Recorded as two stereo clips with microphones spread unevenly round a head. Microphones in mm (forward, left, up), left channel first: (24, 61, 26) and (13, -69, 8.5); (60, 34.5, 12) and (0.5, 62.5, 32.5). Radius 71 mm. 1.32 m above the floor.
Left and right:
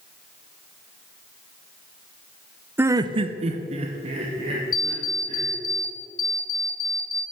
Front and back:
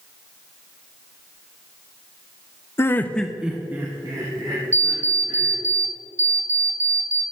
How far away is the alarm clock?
About 0.9 m.